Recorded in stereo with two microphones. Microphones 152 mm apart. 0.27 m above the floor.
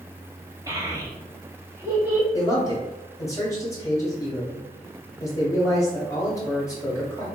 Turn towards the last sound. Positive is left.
turn(degrees=20)  # may be behind; listen again after turning